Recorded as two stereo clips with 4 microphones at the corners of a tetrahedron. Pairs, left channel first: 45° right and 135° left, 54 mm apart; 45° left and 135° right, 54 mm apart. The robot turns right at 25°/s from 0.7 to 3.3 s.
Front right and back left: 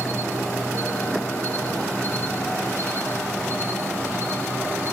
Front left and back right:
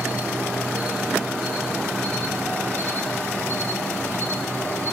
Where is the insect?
65° right, 7 m; by 4.9 s straight ahead, 7 m.